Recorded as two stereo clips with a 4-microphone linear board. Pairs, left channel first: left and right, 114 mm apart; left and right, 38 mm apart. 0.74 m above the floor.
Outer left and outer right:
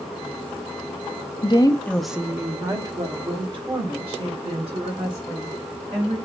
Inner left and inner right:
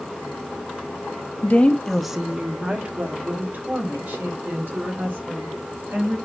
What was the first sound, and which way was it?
A woman speaking, 45° left (ahead or behind).